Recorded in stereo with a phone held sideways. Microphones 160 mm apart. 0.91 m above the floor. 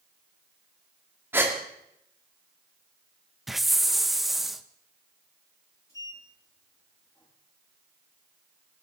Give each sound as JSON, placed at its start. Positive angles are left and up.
{"t": 1.3, "sound": "a gasp", "side_deg": -15, "distance_m": 2.0}
{"t": 3.5, "sound": "a hiss", "side_deg": 0, "distance_m": 0.7}
{"t": 5.9, "sound": "a sliding door", "side_deg": 20, "distance_m": 7.0}